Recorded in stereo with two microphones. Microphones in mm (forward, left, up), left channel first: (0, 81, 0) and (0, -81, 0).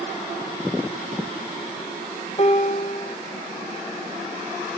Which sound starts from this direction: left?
A piano, at 2.4 s.